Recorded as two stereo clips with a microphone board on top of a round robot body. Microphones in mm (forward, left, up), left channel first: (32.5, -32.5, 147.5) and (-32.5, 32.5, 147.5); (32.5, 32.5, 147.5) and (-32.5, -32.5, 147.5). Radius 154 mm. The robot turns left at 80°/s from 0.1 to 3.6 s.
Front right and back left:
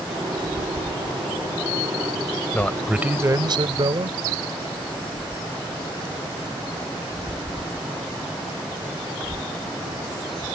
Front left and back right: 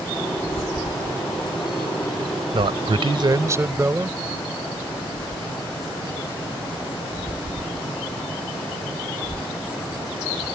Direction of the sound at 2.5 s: 115° right.